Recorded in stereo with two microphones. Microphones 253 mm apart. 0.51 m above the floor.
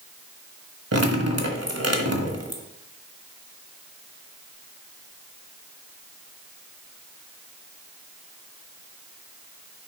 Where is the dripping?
75° right (ahead or behind), 1.4 m.